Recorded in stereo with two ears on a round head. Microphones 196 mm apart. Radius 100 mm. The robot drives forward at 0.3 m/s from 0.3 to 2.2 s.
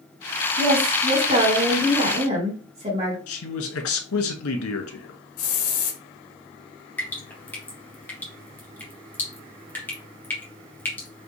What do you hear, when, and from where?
0.6 s a woman speaking: 45° right (ahead or behind), 2 m; by 3.2 s 35° right (ahead or behind), 2.5 m
3.3 s a man speaking: 75° left (ahead or behind), 1.1 m
5.4 s a hiss: 80° left, 0.8 m
7.0 s dripping: 10° left (ahead or behind), 1.3 m